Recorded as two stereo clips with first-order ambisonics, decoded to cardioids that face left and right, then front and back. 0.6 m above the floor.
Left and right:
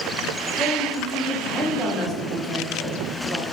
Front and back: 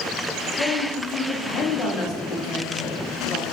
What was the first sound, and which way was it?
A woman speaking, 15° left.